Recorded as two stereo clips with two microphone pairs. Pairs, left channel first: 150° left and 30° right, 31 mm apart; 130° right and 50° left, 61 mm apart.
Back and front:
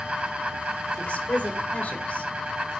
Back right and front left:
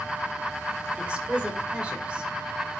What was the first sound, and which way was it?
A woman speaking, 120° left.